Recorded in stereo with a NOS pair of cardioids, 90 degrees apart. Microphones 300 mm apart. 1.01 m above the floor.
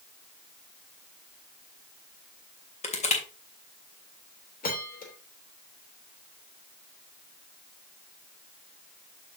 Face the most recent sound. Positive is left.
turn(degrees=30)